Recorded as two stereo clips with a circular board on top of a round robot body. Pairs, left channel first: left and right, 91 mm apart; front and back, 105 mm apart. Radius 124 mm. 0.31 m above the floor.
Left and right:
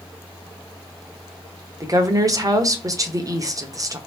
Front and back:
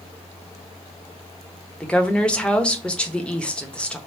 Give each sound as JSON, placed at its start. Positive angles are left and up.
{"t": 1.8, "sound": "a woman speaking", "azimuth_deg": -75, "distance_m": 1.1}